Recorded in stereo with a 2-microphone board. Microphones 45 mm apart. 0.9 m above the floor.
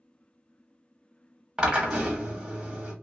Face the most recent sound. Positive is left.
turn(degrees=-20)  # may be behind; listen again after turning